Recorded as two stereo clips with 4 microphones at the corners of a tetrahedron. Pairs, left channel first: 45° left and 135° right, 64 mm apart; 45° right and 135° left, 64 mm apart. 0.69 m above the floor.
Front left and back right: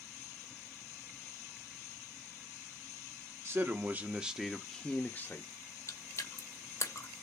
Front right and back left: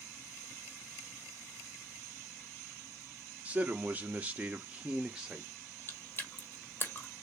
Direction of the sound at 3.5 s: 165° right.